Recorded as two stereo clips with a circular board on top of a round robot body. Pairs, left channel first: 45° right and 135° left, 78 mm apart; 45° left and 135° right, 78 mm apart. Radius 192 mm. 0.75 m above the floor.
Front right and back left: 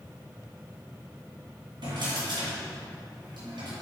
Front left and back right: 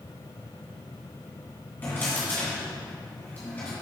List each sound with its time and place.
1.8 s a drawer: 110° left, 2 m